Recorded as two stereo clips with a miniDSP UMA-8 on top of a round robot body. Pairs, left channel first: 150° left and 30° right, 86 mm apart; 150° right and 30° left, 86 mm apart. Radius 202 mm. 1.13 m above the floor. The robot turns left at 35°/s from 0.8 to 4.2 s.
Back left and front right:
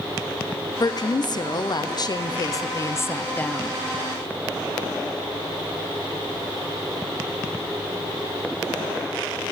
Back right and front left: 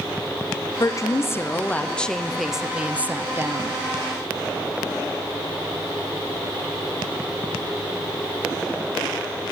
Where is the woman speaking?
175° left, 0.6 m; by 3.8 s 70° left, 0.6 m.